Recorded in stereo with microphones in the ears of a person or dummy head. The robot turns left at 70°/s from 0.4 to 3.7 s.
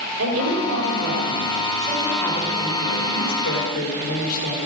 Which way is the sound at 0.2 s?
75° right.